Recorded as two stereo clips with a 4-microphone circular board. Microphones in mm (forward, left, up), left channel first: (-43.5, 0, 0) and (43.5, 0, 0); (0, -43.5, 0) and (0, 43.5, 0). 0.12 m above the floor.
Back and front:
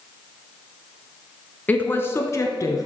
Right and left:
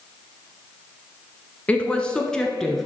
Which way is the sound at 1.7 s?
140° right.